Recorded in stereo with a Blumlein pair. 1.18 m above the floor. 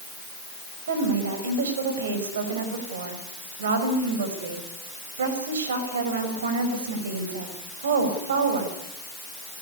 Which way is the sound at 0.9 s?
65° right.